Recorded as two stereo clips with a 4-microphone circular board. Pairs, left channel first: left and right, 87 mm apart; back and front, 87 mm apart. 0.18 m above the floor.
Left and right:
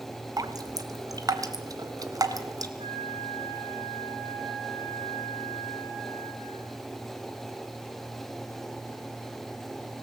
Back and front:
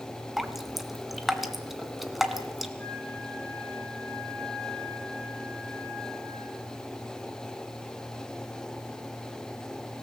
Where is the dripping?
90° right, 1.8 m.